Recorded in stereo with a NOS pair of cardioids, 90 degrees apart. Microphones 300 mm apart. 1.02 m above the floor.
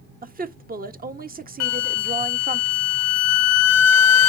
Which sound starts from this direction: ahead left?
A flute, at 1.6 s.